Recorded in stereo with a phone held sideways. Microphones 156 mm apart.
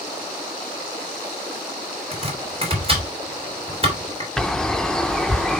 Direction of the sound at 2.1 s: 35° right (ahead or behind).